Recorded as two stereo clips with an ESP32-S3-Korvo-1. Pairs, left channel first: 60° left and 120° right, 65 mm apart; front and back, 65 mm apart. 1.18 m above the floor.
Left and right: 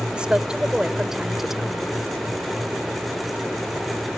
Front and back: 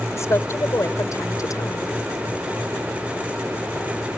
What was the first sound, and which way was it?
A woman speaking, 45° right.